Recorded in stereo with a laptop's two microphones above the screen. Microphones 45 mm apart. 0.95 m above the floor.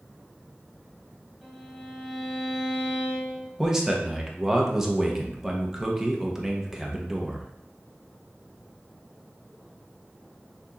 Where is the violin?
5° right (ahead or behind), 1.3 m.